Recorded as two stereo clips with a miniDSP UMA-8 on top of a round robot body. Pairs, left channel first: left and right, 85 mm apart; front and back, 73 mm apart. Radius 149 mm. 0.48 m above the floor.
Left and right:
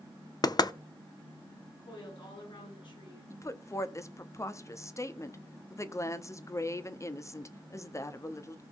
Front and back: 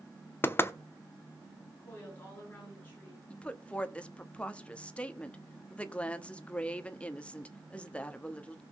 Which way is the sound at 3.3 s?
65° left.